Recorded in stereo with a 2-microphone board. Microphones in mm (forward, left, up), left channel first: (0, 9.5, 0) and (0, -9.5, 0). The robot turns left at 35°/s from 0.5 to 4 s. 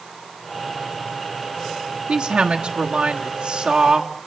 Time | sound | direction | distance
2.1 | a woman speaking | 75° right | 1.2 m